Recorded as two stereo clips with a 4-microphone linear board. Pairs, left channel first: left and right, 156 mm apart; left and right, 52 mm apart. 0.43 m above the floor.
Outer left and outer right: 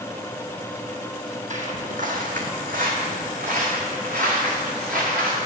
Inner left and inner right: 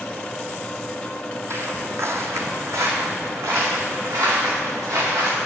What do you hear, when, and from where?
1.5 s footsteps: 55° right (ahead or behind), 0.8 m; by 5.4 s 70° right (ahead or behind), 3 m